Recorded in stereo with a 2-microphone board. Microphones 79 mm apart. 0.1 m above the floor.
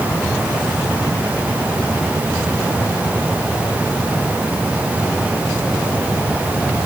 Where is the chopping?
No chopping in this recording.